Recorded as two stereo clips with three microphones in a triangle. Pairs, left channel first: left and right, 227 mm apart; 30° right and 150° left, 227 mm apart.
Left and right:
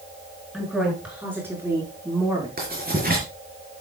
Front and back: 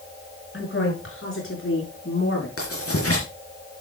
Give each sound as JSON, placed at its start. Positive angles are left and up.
{"t": 0.5, "sound": "a woman speaking", "azimuth_deg": 0, "distance_m": 6.0}
{"t": 2.6, "sound": "writing", "azimuth_deg": -40, "distance_m": 4.5}